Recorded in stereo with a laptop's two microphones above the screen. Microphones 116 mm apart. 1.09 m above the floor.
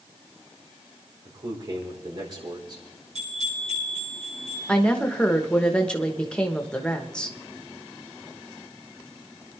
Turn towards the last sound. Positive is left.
turn(degrees=10)  # may be behind; listen again after turning